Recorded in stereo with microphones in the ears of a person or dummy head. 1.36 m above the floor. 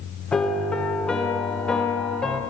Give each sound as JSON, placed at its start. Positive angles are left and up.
{"t": 0.3, "sound": "a piano", "side_deg": 10, "distance_m": 0.9}